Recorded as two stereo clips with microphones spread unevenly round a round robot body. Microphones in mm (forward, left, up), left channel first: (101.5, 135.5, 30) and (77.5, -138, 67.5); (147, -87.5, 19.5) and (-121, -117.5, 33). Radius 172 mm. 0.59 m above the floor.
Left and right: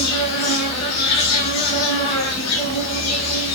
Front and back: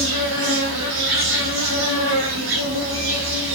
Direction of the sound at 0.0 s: 135° left.